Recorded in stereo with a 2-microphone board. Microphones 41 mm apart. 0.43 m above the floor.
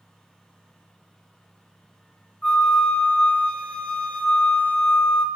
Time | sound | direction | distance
2.4 | a flute | 25° left (ahead or behind) | 0.6 m